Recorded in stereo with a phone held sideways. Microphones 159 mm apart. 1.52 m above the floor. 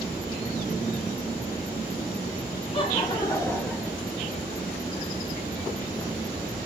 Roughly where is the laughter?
Left.